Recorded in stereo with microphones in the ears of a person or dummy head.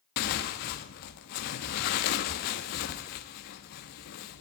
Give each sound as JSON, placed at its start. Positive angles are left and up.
{"t": 0.2, "sound": "tearing paper", "side_deg": 50, "distance_m": 1.4}